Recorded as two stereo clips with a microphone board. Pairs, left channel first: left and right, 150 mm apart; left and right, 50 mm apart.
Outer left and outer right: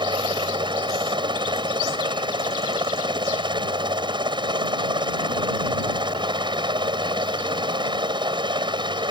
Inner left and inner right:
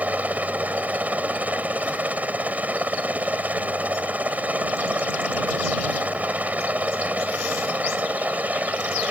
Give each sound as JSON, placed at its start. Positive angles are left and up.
{"t": 0.0, "sound": "a helicopter", "side_deg": -30}